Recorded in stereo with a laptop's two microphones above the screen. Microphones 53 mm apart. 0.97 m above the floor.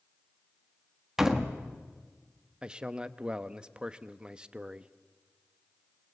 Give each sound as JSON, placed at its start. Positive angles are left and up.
{"t": 1.2, "sound": "a door slam", "side_deg": -10, "distance_m": 1.2}
{"t": 2.6, "sound": "a man speaking", "side_deg": -20, "distance_m": 1.0}